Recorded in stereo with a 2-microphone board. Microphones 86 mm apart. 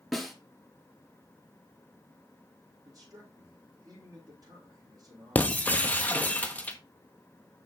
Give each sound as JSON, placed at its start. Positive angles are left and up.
{"t": 0.1, "sound": "a snare drum", "side_deg": 0, "distance_m": 1.5}
{"t": 2.9, "sound": "a man speaking", "side_deg": -45, "distance_m": 5.0}
{"t": 5.3, "sound": "breaking glass", "side_deg": 20, "distance_m": 0.9}